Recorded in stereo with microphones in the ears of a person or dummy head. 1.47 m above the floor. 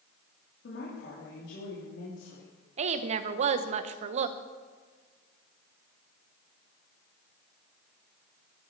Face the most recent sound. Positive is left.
turn(degrees=-45)  # may be behind; listen again after turning